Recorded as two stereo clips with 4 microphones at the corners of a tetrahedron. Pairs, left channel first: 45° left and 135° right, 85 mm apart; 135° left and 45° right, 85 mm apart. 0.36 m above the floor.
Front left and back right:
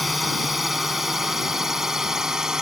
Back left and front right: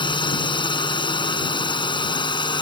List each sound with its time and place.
0.0 s a drone: 135° left; by 2.6 s 140° left